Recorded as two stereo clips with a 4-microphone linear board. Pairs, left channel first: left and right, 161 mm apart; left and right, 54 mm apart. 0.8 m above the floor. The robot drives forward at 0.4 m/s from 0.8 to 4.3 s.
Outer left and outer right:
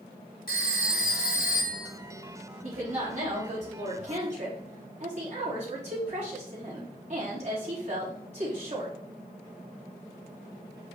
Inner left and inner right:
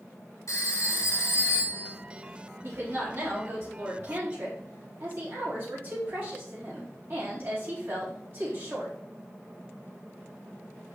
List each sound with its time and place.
0.5 s a phone ringing: 70° left (ahead or behind), 1.9 m; by 1.9 s 60° left (ahead or behind), 2 m
2.6 s a woman speaking: 50° right (ahead or behind), 4 m; by 8.9 s 45° right (ahead or behind), 4.5 m